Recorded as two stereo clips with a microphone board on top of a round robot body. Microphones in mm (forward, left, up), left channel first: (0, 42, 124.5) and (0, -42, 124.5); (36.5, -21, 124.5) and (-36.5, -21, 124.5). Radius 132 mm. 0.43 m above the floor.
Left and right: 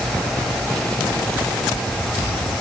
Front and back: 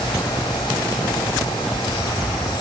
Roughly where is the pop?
No pop in this recording.